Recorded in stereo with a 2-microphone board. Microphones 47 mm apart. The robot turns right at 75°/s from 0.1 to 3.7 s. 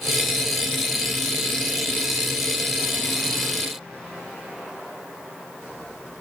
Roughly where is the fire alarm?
No fire alarm in this recording.